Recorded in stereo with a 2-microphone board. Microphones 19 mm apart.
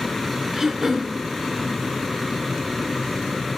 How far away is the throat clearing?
About 2.5 m.